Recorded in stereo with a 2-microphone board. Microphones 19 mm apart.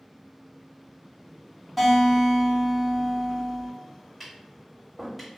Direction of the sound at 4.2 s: 10° right (ahead or behind).